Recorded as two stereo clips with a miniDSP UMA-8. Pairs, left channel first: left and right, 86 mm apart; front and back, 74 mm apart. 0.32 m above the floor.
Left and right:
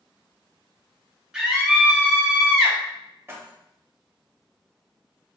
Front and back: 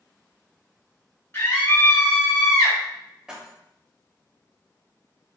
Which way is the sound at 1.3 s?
15° right.